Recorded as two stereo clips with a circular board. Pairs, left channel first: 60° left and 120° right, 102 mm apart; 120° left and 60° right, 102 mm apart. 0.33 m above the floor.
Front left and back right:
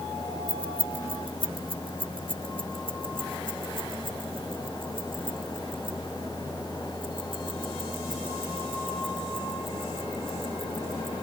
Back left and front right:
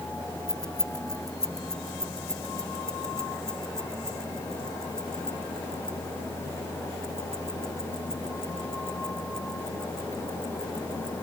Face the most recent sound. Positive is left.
turn(degrees=-155)